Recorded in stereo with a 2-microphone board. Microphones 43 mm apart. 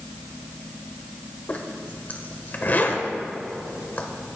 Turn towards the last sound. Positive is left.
turn(degrees=45)  # may be behind; listen again after turning